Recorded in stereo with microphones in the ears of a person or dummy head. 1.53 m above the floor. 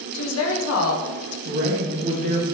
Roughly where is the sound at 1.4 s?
Right.